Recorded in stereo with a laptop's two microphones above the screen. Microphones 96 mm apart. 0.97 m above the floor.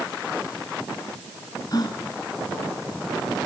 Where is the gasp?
45° left (ahead or behind), 4 m.